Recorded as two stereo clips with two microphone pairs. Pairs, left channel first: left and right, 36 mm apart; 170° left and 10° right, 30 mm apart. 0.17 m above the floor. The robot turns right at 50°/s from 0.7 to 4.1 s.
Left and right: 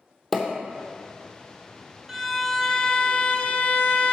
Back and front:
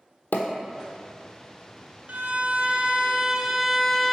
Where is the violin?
10° right, 0.6 m; by 4.1 s 90° left, 0.6 m.